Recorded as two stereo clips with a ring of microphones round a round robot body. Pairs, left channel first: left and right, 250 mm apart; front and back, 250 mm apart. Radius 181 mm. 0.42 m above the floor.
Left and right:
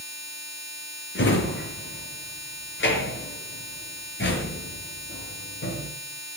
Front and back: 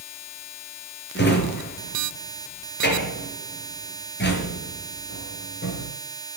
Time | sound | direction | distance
1.1 | a drawer | 45° left | 4.5 m